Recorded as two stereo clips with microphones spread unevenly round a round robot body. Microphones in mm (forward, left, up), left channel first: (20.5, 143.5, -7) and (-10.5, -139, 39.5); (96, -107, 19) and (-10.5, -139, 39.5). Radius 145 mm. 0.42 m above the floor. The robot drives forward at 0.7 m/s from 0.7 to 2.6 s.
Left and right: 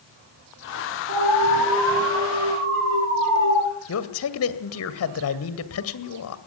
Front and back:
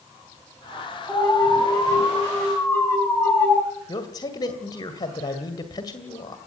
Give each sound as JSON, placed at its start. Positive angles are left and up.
{"t": 1.1, "sound": "an alarm", "azimuth_deg": -50, "distance_m": 8.5}
{"t": 3.9, "sound": "a man speaking", "azimuth_deg": 70, "distance_m": 1.9}